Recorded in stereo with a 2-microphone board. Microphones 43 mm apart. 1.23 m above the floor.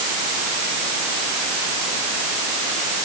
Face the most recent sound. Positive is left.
No sound to turn to.